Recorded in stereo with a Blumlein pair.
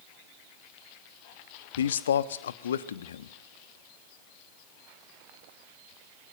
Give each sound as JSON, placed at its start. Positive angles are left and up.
{"t": 1.8, "sound": "a man speaking", "azimuth_deg": 65, "distance_m": 1.2}